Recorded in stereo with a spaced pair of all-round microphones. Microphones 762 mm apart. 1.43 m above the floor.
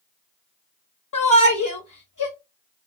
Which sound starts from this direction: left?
A shout, at 1.1 s.